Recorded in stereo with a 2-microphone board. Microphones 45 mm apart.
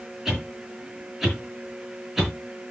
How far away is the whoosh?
About 5.5 m.